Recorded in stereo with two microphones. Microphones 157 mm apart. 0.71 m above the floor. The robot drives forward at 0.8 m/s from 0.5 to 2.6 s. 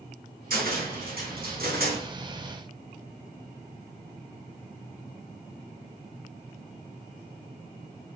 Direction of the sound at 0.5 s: 65° right (ahead or behind).